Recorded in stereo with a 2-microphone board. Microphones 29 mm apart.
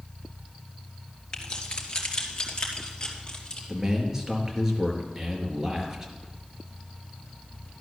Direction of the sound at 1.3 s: 35° left (ahead or behind).